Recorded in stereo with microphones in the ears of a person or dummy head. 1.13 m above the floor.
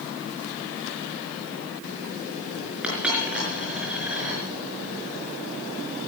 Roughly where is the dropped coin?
Centre.